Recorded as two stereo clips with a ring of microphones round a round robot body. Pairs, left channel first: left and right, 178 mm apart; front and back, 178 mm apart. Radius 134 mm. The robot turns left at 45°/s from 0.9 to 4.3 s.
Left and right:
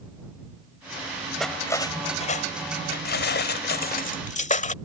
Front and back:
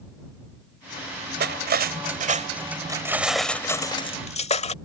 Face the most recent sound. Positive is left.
turn(degrees=50)